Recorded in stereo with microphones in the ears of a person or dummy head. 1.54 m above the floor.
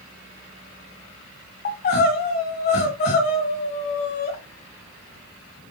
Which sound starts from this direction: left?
Crying, at 1.6 s.